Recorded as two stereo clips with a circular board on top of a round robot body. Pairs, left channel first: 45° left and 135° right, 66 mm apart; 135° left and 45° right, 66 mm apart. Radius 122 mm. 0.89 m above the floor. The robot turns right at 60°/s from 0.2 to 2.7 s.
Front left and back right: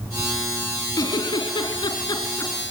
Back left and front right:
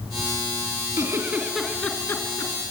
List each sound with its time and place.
1.0 s a giggle: straight ahead, 3 m; by 2.5 s 95° left, 3 m